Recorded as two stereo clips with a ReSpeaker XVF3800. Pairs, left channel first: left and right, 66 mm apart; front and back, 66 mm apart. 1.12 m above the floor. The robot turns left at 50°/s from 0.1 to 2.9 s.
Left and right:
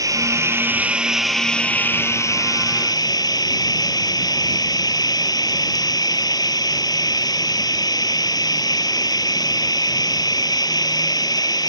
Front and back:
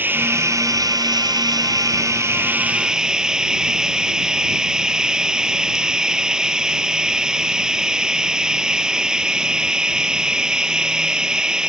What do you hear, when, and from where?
0.0 s running water: 120° right; by 11.7 s 100° left